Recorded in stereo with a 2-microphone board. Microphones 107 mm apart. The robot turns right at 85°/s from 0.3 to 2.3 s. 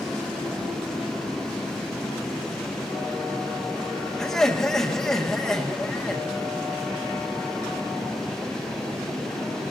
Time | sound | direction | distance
4.2 | laughter | 5° left (ahead or behind) | 1.6 m